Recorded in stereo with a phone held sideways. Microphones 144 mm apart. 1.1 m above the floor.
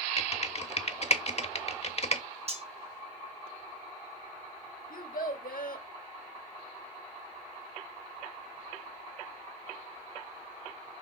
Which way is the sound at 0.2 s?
50° left (ahead or behind).